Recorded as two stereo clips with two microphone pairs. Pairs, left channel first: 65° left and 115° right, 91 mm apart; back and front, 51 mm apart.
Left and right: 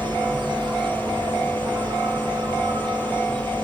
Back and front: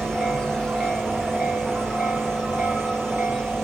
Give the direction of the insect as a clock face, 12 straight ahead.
3 o'clock.